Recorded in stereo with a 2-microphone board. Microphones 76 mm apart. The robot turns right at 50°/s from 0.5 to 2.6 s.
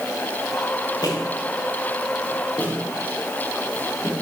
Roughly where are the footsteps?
Left.